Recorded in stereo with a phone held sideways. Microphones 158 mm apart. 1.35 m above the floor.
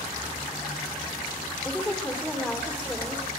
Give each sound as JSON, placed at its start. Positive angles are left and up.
{"t": 1.6, "sound": "a woman speaking", "side_deg": 0, "distance_m": 3.5}